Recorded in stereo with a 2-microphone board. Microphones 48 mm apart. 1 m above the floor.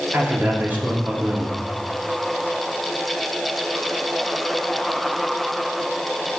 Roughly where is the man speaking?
Right.